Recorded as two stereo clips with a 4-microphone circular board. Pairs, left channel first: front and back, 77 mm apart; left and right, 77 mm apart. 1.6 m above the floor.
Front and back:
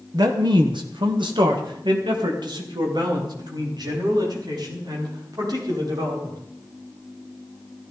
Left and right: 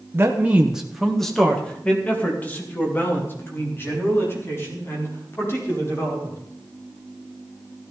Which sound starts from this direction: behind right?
A man speaking, at 0.1 s.